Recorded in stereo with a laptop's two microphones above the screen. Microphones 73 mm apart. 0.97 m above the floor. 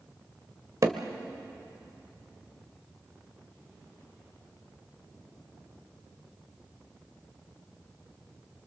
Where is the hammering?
45° right (ahead or behind), 1.4 m.